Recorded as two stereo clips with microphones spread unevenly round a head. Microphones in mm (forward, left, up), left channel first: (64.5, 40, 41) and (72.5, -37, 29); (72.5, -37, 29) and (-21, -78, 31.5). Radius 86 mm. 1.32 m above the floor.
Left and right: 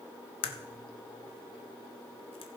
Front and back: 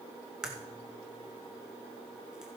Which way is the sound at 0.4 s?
115° left.